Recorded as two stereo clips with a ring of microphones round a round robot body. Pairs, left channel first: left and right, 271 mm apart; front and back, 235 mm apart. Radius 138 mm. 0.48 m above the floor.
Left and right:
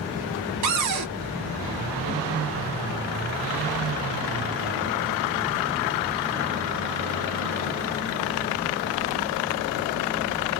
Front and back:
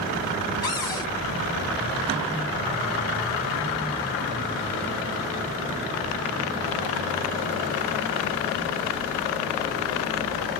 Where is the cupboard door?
75° right, 0.7 m.